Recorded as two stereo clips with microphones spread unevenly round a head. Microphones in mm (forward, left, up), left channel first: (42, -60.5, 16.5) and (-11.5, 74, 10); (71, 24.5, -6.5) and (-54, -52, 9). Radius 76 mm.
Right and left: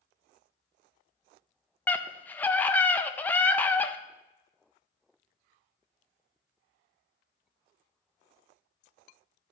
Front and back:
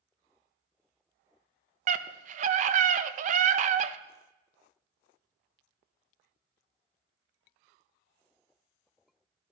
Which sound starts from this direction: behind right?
A scream, at 1.9 s.